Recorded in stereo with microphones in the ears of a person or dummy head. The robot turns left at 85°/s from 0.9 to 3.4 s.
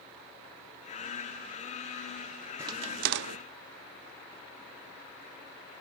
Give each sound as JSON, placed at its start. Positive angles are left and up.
{"t": 2.6, "sound": "a crack", "side_deg": -10, "distance_m": 1.0}